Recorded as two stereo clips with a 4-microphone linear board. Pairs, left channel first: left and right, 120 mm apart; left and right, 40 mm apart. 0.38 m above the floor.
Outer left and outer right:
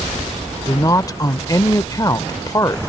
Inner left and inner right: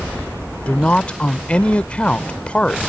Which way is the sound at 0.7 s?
30° left (ahead or behind).